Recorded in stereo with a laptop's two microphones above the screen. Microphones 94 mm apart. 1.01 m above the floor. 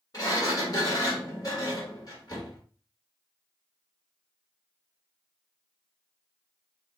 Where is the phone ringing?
I don't hear a phone ringing.